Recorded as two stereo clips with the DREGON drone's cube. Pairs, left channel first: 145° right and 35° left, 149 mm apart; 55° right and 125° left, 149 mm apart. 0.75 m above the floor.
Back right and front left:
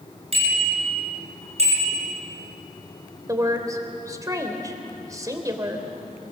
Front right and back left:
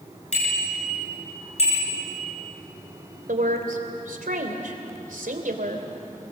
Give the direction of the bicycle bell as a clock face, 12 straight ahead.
12 o'clock.